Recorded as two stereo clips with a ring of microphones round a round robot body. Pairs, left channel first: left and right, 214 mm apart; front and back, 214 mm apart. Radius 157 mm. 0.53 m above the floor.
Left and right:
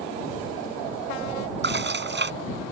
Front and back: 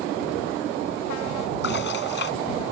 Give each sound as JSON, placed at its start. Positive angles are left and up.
{"t": 1.6, "sound": "dishes clattering", "azimuth_deg": -55}